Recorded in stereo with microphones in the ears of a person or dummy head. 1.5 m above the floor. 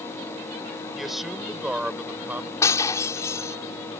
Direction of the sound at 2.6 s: 20° left (ahead or behind).